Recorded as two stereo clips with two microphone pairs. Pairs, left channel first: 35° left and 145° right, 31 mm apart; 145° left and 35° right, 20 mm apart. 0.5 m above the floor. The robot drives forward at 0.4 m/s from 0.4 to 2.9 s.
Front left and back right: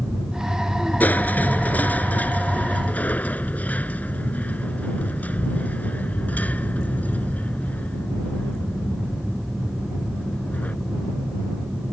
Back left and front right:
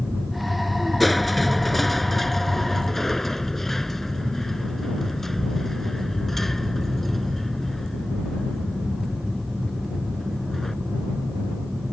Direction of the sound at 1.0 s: 55° left.